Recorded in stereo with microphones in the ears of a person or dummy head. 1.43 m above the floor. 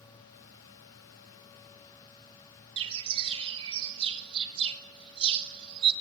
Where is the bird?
35° right (ahead or behind), 2.5 m.